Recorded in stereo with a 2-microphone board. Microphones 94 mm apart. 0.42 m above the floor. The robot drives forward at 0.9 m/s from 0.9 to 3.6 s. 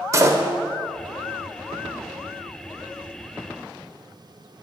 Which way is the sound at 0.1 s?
35° right (ahead or behind).